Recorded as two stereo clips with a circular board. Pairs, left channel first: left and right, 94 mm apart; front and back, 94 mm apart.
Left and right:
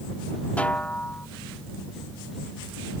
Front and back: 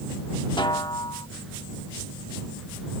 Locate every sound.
0.6 s a snare drum: 15° left